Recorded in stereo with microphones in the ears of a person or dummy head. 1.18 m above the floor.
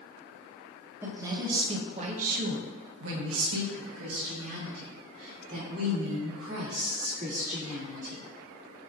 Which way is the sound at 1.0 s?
10° right (ahead or behind).